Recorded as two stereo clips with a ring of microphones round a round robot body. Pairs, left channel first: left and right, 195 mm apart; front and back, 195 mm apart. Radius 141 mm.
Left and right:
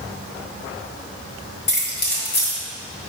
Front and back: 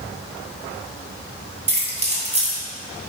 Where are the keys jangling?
125° left, 2.5 m.